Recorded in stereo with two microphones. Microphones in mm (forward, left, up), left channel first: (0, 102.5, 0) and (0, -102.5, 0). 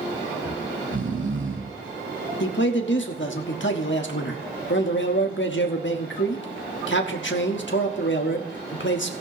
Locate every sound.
0.5 s snoring: 75° right (ahead or behind), 2.5 m
2.4 s a man speaking: 65° left (ahead or behind), 1.3 m